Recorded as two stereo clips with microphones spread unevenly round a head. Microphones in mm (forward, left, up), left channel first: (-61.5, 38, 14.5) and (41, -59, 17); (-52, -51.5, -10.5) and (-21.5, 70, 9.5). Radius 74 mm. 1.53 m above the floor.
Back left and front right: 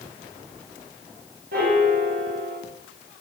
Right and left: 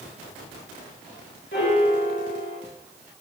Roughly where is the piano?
Right.